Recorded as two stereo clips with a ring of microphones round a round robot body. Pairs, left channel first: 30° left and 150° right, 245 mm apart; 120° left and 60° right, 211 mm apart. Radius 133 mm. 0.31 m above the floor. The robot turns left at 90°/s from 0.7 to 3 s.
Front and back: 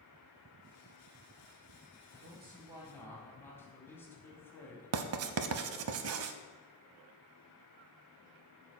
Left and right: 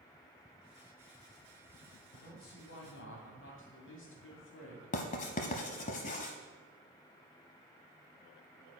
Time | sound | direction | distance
2.1 | a man speaking | 170° right | 2 m
4.9 | writing | straight behind | 0.6 m